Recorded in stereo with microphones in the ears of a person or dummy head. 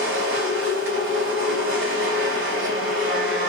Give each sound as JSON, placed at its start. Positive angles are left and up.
{"t": 0.0, "sound": "a machine running", "side_deg": -65, "distance_m": 2.5}